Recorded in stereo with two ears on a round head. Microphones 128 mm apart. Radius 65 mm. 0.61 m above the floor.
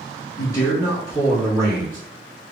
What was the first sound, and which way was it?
A man speaking, 25° left (ahead or behind).